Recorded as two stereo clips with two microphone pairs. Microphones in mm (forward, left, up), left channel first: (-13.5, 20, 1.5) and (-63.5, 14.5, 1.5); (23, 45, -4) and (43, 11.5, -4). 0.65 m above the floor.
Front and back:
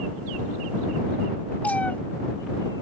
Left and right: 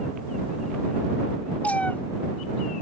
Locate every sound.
1.6 s a cat meowing: 70° left